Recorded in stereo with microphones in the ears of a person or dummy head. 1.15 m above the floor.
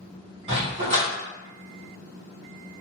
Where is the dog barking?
35° right (ahead or behind), 1.5 m.